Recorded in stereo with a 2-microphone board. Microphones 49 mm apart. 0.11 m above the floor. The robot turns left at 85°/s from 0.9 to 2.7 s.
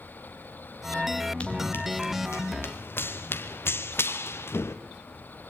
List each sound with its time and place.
1.4 s running footsteps: 25° left (ahead or behind), 4 m; by 4.8 s 65° left (ahead or behind), 2 m